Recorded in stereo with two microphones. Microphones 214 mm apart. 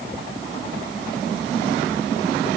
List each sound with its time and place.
Only background noise.